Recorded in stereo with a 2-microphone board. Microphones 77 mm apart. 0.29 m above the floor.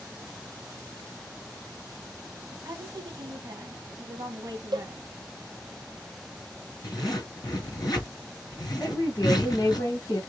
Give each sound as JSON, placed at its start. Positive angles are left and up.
{"t": 2.5, "sound": "a woman speaking", "side_deg": -55, "distance_m": 2.0}
{"t": 4.7, "sound": "a cowbell", "side_deg": -65, "distance_m": 0.6}
{"t": 6.8, "sound": "a zipper", "side_deg": 60, "distance_m": 3.0}
{"t": 8.8, "sound": "a woman speaking", "side_deg": 50, "distance_m": 1.7}